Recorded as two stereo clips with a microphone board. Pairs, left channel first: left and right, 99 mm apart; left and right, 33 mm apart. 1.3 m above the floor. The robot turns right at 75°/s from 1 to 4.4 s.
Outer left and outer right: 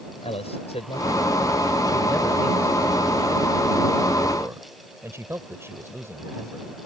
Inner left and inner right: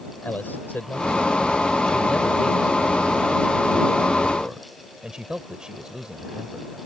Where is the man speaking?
80° left; by 6.7 s 25° right.